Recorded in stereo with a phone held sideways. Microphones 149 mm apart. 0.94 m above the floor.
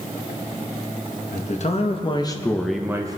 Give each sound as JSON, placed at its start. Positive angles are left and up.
{"t": 1.3, "sound": "a man speaking", "side_deg": 55, "distance_m": 1.2}